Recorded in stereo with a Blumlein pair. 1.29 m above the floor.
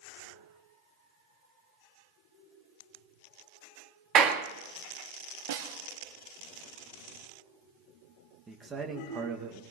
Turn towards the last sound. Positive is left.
turn(degrees=-15)